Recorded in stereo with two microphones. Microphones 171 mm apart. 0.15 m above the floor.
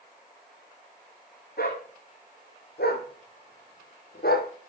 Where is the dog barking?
75° left (ahead or behind), 2.5 m; by 4.5 s 70° left (ahead or behind), 1.3 m.